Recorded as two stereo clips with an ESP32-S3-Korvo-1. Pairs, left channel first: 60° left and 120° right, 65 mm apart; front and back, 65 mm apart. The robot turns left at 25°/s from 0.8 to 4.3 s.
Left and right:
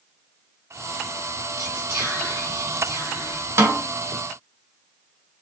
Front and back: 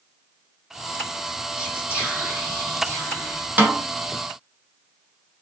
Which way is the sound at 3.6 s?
130° right.